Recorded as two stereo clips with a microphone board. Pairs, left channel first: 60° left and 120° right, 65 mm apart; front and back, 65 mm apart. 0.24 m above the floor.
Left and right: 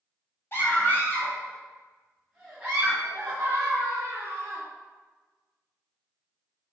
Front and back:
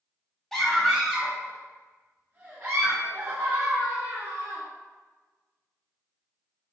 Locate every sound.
0.5 s a scream: 85° left, 1.3 m; by 4.6 s 170° right, 2.0 m